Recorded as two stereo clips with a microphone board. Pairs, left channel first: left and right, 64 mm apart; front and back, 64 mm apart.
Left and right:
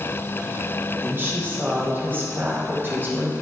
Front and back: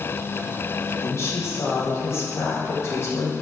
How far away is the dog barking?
I don't hear a dog barking.